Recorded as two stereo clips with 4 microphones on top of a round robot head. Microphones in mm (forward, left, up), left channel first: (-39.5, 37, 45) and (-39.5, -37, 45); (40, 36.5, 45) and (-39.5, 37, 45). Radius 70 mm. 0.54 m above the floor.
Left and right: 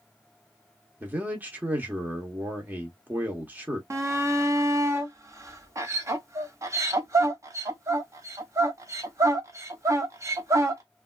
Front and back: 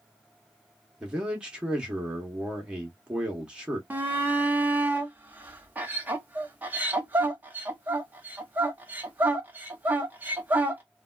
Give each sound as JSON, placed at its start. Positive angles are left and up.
{"t": 1.0, "sound": "a man speaking", "azimuth_deg": -115, "distance_m": 0.9}
{"t": 3.9, "sound": "a shout", "azimuth_deg": -120, "distance_m": 1.1}